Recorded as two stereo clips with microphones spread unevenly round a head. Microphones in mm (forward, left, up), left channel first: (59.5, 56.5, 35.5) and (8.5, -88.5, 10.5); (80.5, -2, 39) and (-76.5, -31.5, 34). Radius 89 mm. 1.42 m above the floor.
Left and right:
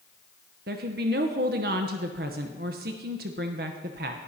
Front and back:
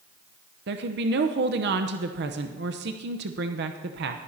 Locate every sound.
0.7 s a woman speaking: 150° right, 0.7 m